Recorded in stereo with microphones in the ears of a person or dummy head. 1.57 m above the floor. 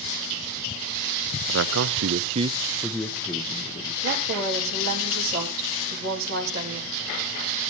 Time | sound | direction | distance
1.5 | a man speaking | 75° right (ahead or behind) | 0.7 m
4.0 | a woman speaking | 55° right (ahead or behind) | 4 m